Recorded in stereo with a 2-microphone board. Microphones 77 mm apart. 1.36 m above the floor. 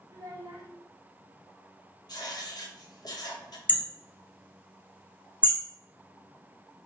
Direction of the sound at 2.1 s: 60° left (ahead or behind).